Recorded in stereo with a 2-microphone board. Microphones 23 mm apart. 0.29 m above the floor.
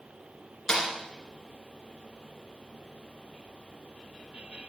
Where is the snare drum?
20° left (ahead or behind), 3.5 m.